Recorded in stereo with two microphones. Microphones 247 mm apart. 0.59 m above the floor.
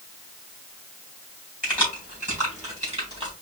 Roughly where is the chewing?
No chewing in this recording.